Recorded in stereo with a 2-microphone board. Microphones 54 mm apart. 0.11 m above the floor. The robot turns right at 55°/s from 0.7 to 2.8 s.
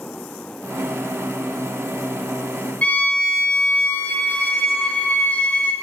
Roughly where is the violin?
Left.